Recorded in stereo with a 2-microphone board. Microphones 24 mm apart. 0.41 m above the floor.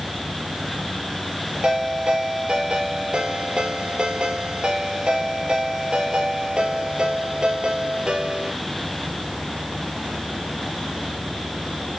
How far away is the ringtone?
About 6 m.